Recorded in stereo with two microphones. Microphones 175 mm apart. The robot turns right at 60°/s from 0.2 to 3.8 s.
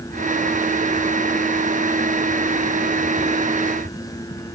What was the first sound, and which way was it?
Only background noise.